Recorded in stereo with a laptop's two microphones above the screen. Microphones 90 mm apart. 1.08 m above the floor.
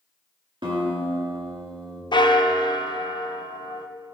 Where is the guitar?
70° right (ahead or behind), 1.7 m.